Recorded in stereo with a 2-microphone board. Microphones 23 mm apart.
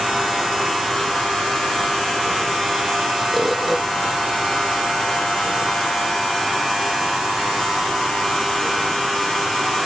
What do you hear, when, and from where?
3.3 s a bird: 10° right (ahead or behind)